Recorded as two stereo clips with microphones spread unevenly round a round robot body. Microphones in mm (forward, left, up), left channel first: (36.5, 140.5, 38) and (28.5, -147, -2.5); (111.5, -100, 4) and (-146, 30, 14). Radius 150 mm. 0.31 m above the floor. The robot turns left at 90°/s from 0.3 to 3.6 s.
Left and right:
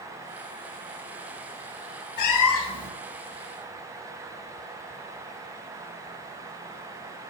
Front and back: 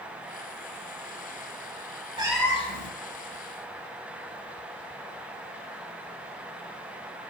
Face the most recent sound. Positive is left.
turn(degrees=-50)